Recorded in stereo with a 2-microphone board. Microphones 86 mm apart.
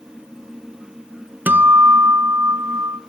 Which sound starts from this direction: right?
A guitar, at 1.5 s.